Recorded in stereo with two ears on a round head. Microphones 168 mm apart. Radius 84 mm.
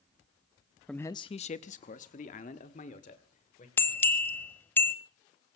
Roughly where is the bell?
Centre.